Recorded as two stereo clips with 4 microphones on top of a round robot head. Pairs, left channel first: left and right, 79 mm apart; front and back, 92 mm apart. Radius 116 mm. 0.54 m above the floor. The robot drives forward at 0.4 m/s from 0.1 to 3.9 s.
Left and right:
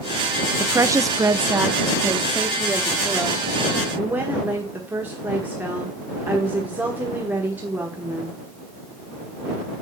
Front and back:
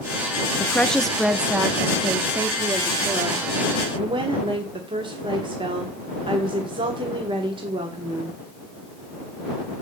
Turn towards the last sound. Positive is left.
turn(degrees=-160)